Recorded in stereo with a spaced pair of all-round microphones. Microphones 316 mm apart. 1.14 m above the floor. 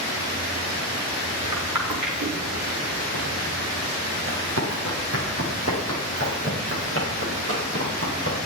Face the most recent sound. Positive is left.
turn(degrees=-40)  # may be behind; listen again after turning